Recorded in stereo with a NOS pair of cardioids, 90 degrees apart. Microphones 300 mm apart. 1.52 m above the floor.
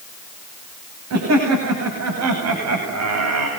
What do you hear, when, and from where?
1.1 s laughter: 55° right, 9 m; by 3.5 s 60° right, 8 m